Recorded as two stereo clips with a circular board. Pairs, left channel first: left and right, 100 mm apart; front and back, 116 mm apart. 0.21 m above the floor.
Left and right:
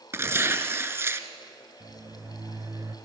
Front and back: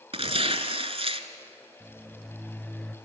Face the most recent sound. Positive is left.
turn(degrees=-75)